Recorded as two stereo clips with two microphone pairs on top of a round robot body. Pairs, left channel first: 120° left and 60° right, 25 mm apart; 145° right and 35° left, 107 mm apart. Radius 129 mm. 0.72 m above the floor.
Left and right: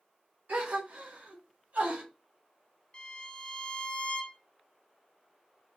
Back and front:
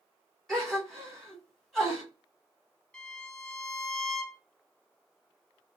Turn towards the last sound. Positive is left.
turn(degrees=130)